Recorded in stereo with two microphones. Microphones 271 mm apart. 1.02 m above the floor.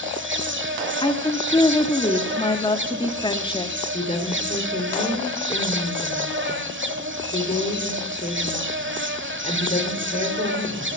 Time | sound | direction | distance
0.0 | an insect | 45° right (ahead or behind) | 1.1 m
1.0 | a woman speaking | 20° left (ahead or behind) | 1.5 m
3.9 | a woman speaking | 30° left (ahead or behind) | 3 m